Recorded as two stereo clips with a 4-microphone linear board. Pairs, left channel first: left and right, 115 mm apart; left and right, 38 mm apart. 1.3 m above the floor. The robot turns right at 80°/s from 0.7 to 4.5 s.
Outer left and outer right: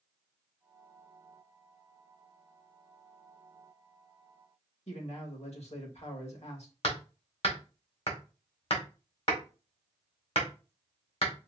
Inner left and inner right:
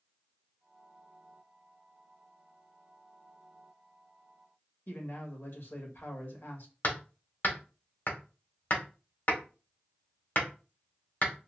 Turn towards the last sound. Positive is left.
turn(degrees=60)  # may be behind; listen again after turning